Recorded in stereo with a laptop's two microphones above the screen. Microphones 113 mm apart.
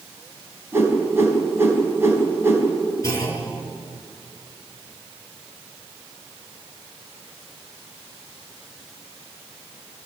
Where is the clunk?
30° left (ahead or behind), 5 m.